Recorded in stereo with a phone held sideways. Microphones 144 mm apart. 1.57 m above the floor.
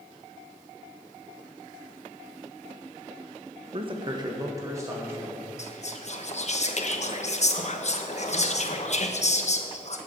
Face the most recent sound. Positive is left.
turn(degrees=50)  # may be behind; listen again after turning